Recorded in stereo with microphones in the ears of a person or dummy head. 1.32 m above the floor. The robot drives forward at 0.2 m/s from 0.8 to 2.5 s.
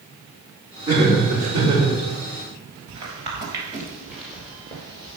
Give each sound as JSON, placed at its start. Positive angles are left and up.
{"t": 0.9, "sound": "laughter", "side_deg": -20, "distance_m": 3.5}
{"t": 2.9, "sound": "footsteps", "side_deg": -30, "distance_m": 2.0}